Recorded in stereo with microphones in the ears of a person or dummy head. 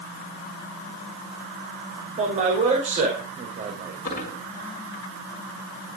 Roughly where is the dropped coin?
Left.